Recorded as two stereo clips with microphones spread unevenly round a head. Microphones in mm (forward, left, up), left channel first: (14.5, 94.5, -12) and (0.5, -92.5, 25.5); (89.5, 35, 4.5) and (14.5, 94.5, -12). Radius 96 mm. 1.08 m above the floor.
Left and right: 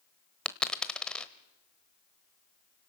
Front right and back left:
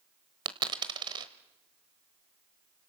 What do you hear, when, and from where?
0.5 s a dropped coin: 175° right, 1.1 m